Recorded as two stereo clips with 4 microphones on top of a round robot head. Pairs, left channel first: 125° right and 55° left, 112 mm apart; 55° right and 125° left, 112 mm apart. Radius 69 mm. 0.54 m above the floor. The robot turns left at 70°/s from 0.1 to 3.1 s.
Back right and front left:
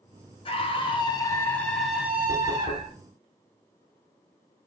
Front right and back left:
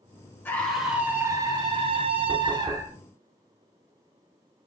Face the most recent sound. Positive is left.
turn(degrees=165)